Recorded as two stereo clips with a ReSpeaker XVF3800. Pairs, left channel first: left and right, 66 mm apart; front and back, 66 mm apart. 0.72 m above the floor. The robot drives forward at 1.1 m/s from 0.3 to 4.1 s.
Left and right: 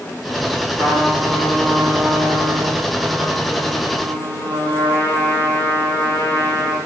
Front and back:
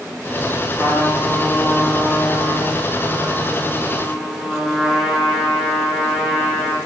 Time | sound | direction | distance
0.7 | a trumpet | 60° right | 6.5 m